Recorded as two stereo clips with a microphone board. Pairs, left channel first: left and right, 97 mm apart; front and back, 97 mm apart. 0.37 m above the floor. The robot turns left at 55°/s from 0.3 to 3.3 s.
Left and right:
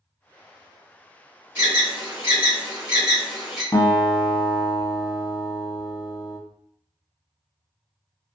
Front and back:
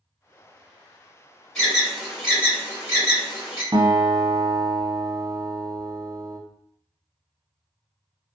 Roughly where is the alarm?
Right.